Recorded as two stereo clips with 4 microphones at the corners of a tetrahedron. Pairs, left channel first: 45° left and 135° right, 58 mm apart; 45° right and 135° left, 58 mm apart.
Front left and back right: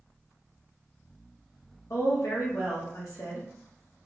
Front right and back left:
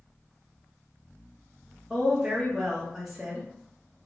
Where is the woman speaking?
50° left, 0.6 m.